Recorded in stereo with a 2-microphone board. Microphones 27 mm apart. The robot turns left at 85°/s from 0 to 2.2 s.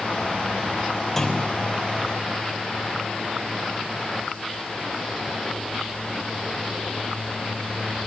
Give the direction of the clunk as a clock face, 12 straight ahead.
6 o'clock.